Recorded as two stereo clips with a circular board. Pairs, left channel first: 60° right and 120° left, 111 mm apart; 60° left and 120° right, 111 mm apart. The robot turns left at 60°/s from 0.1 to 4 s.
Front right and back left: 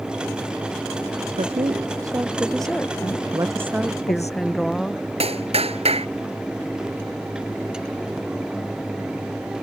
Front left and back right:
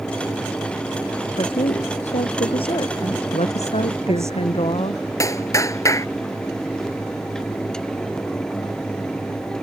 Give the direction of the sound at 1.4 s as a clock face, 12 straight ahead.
9 o'clock.